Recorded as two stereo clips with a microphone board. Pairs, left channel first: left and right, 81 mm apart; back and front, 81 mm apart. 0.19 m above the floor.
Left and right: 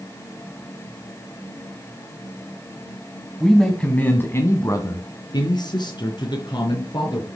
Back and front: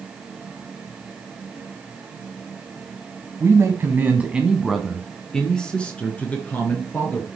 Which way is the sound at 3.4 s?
Straight ahead.